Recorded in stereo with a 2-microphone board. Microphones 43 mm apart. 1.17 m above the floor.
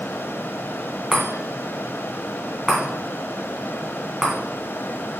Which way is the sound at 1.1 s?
15° right (ahead or behind).